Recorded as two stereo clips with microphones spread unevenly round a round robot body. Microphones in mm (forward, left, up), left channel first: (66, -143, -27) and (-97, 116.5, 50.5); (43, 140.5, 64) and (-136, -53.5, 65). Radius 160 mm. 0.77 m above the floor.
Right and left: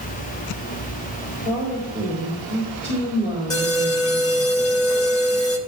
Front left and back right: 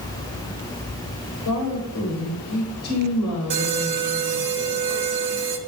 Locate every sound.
1.4 s a woman speaking: straight ahead, 4 m
3.5 s an alarm: 135° right, 2.5 m